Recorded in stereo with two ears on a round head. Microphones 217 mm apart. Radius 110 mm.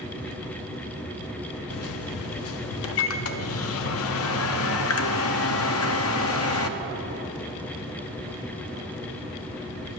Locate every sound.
1.7 s a microwave: 60° left (ahead or behind), 0.6 m